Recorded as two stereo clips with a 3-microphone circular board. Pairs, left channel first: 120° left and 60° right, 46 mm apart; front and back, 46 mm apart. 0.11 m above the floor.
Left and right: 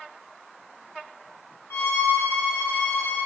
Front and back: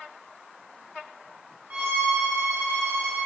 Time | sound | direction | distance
1.7 | a violin | 125° left | 3 m